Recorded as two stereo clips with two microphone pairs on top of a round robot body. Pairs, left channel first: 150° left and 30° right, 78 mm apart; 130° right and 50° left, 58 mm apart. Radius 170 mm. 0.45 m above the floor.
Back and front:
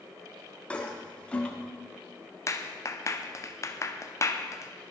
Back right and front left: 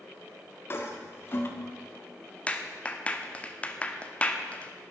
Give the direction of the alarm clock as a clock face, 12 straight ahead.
I don't hear an alarm clock.